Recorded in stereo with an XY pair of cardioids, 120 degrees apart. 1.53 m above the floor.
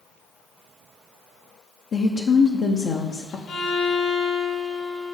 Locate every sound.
1.9 s a woman speaking: 45° left, 0.8 m
3.5 s a violin: 65° left, 3.5 m